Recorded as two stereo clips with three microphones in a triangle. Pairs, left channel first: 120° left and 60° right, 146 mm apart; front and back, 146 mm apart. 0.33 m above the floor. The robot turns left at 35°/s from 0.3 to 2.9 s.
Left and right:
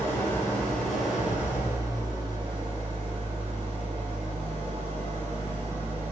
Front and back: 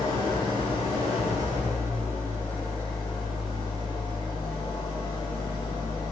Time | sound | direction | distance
0.0 | an engine running | 50° left | 1.4 m